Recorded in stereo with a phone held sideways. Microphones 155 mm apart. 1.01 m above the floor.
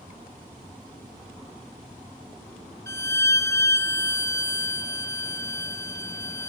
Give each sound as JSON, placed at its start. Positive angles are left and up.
{"t": 2.9, "sound": "a violin", "side_deg": 20, "distance_m": 0.6}